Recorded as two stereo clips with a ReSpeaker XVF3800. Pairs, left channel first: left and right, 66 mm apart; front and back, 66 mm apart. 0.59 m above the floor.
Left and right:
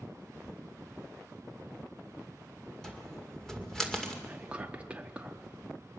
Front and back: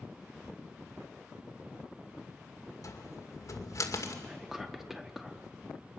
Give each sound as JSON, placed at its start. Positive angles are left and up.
{"t": 2.8, "sound": "a cupboard door", "azimuth_deg": 10, "distance_m": 2.0}
{"t": 4.2, "sound": "whispering", "azimuth_deg": -105, "distance_m": 1.0}